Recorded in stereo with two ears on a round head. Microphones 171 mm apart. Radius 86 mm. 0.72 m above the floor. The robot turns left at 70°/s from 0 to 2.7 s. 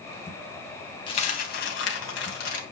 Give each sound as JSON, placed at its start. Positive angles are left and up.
{"t": 1.1, "sound": "a dropped coin", "azimuth_deg": 155, "distance_m": 2.5}